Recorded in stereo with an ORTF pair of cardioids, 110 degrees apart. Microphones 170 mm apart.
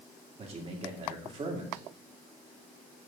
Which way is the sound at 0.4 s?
35° right.